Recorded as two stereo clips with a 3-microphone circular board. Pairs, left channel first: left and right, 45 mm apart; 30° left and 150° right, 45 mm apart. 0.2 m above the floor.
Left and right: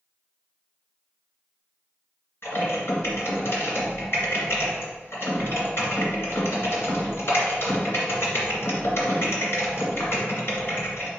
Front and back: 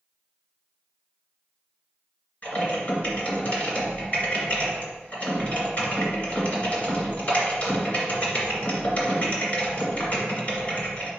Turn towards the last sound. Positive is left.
turn(degrees=80)